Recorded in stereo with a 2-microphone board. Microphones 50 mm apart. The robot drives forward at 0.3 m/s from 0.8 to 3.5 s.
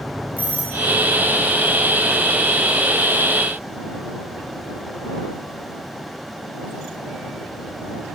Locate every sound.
0.4 s a doorbell: 40° left (ahead or behind), 2.5 m